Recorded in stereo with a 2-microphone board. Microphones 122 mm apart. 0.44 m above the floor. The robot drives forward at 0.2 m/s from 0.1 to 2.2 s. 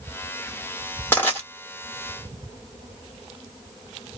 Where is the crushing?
20° left (ahead or behind), 1.4 m.